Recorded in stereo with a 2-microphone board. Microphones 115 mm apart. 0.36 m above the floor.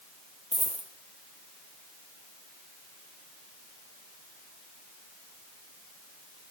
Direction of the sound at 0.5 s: 75° right (ahead or behind).